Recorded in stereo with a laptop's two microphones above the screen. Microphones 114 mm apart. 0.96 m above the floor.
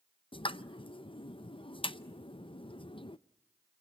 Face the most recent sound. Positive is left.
turn(degrees=50)  # may be behind; listen again after turning